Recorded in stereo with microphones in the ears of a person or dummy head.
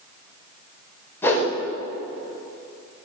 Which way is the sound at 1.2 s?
10° left (ahead or behind).